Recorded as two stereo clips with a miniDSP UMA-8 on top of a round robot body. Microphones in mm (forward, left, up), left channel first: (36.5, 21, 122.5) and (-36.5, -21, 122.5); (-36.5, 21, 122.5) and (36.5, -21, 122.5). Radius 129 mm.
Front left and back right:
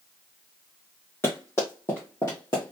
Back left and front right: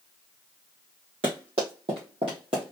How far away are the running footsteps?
About 2.5 m.